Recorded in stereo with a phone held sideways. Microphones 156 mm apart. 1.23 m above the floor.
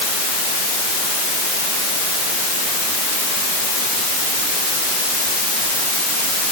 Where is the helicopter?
I don't hear a helicopter.